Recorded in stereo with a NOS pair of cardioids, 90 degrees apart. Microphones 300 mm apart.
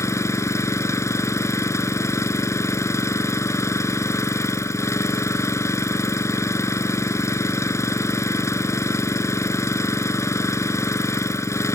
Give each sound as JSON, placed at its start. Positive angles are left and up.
{"t": 0.0, "sound": "an engine running", "azimuth_deg": 10}